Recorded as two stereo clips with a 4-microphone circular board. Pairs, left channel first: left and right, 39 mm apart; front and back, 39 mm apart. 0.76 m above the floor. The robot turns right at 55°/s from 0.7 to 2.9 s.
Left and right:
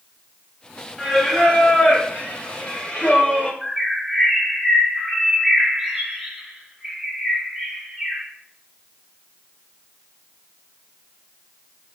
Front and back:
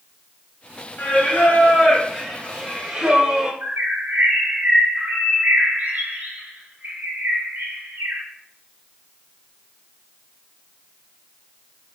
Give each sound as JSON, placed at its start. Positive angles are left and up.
{"t": 1.0, "sound": "singing", "azimuth_deg": 5, "distance_m": 0.5}
{"t": 3.6, "sound": "a bird", "azimuth_deg": -170, "distance_m": 0.7}